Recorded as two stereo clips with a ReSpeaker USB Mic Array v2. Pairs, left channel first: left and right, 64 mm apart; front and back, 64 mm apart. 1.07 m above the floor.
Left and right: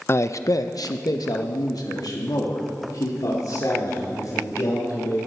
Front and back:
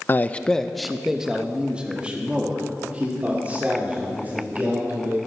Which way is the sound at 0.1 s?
50° left.